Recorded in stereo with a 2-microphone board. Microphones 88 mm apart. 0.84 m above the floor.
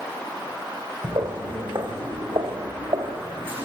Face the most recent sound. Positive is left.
turn(degrees=-80)